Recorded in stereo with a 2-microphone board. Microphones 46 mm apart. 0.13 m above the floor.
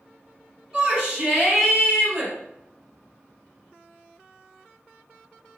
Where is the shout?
20° right (ahead or behind), 1.5 m.